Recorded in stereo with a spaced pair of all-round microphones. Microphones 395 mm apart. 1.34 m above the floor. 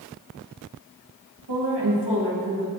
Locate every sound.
1.5 s a woman speaking: 85° right, 1.8 m